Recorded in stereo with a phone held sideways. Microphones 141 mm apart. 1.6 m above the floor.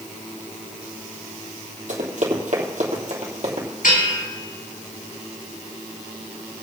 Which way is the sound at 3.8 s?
75° left (ahead or behind).